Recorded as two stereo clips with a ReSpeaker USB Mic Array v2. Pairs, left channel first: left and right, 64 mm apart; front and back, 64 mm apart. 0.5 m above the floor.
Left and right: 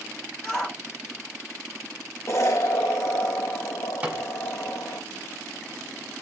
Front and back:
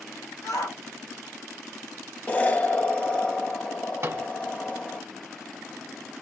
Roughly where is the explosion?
Ahead left.